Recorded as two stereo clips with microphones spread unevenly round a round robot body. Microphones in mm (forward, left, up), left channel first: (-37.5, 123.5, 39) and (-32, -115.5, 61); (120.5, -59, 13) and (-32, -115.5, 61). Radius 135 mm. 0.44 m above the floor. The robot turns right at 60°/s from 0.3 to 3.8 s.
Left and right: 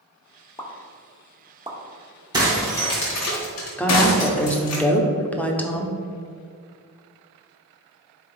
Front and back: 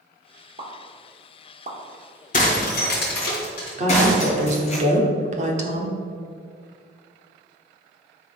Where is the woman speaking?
160° left, 1.3 m.